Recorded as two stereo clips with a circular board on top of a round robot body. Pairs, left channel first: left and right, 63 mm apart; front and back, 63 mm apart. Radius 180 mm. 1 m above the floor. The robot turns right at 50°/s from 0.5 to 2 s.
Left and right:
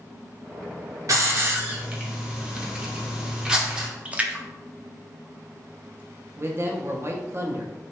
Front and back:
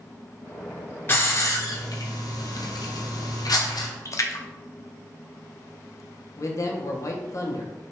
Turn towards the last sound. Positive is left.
turn(degrees=-40)